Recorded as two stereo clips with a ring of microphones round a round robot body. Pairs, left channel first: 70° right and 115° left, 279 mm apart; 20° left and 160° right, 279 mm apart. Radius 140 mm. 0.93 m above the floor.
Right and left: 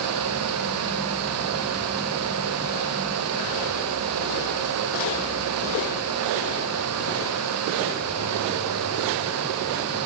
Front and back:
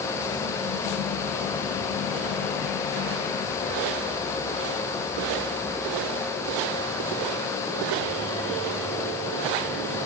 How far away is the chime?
I don't hear a chime.